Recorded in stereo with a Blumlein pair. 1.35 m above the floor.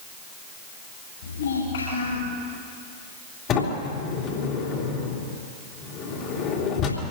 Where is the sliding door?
30° left, 3.5 m.